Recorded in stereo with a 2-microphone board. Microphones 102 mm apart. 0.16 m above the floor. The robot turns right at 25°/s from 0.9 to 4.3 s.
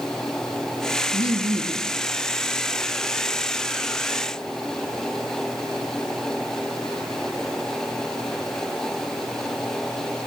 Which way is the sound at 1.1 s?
65° right (ahead or behind).